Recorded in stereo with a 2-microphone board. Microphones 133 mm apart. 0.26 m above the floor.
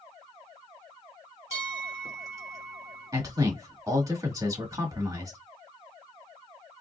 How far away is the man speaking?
About 1.5 m.